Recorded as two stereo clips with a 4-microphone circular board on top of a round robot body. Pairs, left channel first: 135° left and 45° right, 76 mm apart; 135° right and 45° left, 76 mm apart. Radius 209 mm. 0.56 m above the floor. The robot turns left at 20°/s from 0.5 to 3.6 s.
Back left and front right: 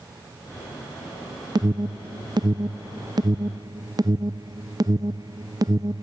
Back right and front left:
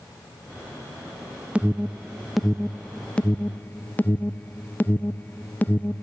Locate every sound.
1.6 s an alarm: 30° right, 0.7 m; by 6.0 s 70° right, 0.7 m